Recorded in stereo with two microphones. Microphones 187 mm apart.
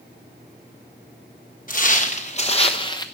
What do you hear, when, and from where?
1.7 s footsteps: 45° left (ahead or behind), 1.4 m; by 3.1 s 20° left (ahead or behind), 0.9 m